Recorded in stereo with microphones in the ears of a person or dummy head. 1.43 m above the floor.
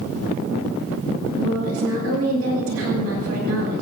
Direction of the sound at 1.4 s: 85° right.